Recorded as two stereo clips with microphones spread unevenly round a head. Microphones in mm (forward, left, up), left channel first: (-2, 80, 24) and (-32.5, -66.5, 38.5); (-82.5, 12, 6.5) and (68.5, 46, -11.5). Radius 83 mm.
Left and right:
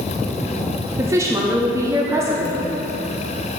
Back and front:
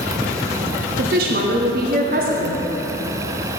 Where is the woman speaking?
30° right, 0.8 m.